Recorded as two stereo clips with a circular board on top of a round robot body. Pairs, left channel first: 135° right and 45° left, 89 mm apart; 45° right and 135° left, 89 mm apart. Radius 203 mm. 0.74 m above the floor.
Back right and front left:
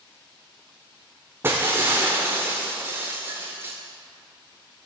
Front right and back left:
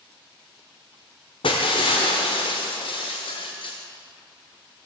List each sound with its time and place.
1.4 s breaking glass: 20° right, 0.5 m